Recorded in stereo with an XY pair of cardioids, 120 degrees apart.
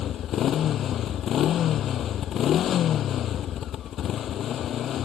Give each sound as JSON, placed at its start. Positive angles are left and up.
{"t": 0.0, "sound": "a motorcycle", "azimuth_deg": 55}